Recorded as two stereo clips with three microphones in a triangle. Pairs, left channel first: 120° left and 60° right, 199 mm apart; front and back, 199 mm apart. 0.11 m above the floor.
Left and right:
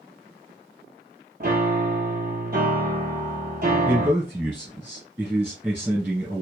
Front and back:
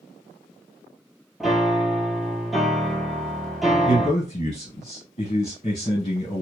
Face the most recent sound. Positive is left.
turn(degrees=10)